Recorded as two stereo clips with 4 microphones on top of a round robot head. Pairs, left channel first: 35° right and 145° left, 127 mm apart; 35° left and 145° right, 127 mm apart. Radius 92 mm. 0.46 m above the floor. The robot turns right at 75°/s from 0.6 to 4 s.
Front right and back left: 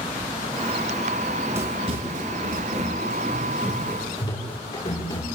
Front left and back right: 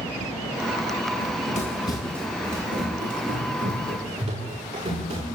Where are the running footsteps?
45° left, 8.5 m; by 5.2 s 105° right, 14 m.